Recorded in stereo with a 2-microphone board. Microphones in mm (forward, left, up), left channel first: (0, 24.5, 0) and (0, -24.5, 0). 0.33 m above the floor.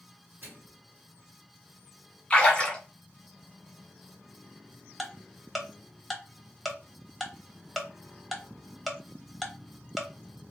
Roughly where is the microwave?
Right.